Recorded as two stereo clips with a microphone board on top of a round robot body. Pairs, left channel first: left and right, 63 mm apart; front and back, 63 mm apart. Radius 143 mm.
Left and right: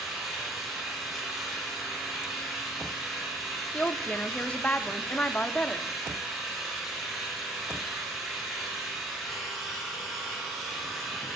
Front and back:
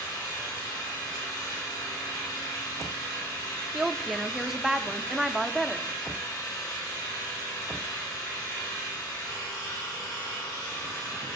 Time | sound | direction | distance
0.0 | an engine running | 5° right | 4.5 m
3.7 | a woman speaking | 105° left | 0.8 m